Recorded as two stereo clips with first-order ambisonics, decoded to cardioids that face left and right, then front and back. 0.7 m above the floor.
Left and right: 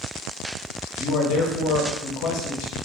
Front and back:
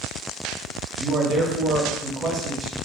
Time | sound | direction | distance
1.0 | a man speaking | 115° left | 0.9 m